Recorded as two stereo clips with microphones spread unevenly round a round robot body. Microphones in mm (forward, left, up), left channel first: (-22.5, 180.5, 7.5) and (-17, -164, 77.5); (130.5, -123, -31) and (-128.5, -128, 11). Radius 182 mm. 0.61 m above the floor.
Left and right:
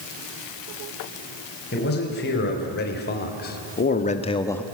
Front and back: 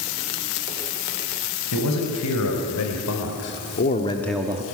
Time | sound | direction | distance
1.7 | a man speaking | 30° left | 4.5 m